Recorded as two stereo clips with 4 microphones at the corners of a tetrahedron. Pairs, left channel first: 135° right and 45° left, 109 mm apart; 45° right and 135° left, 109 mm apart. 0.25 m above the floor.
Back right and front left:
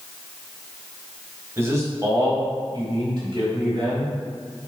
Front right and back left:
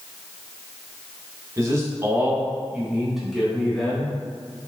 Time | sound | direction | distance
1.6 | a man speaking | 100° left | 1.5 m